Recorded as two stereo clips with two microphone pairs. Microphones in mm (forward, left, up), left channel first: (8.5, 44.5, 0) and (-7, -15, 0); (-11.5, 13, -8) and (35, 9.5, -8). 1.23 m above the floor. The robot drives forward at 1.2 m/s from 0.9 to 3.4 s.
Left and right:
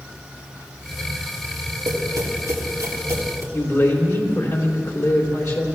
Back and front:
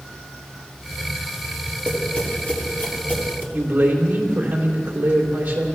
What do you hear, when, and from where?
1.9 s tapping: 110° right, 2 m; by 3.4 s 140° right, 3.5 m
3.5 s a man speaking: 45° left, 3 m